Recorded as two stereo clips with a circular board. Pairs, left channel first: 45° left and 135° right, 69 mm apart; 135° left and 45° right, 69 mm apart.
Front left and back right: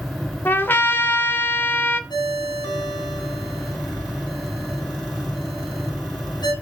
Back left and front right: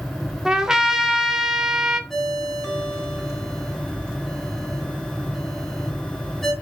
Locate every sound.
0.5 s a trumpet: 25° left, 1.3 m
2.1 s a ringtone: 50° left, 3.5 m